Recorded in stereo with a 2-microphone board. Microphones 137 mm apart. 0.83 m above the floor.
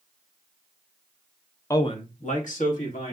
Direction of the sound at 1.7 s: 20° left (ahead or behind).